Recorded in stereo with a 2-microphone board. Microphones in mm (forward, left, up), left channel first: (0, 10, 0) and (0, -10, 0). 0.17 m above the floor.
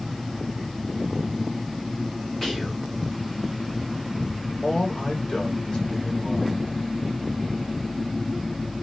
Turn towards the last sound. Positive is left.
turn(degrees=50)  # may be behind; listen again after turning